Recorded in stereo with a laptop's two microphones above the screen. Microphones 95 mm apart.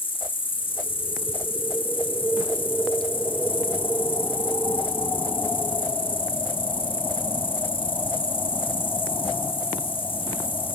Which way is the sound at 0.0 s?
70° left (ahead or behind).